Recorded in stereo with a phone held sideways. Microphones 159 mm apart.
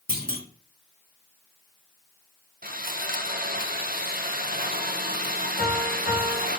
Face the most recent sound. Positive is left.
turn(degrees=80)